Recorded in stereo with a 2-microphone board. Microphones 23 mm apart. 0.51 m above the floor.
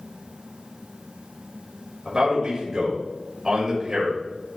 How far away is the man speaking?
About 2 m.